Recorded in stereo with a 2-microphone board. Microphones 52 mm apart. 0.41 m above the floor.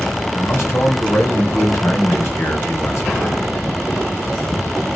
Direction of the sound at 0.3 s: 60° left (ahead or behind).